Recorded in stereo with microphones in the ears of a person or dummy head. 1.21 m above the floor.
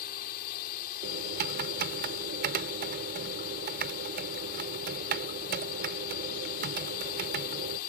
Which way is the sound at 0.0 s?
50° left (ahead or behind).